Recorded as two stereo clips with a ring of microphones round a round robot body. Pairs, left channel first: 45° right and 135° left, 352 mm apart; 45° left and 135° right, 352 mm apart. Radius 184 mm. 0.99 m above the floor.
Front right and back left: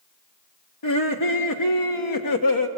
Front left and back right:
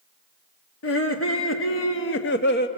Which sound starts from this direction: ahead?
Laughter, at 0.8 s.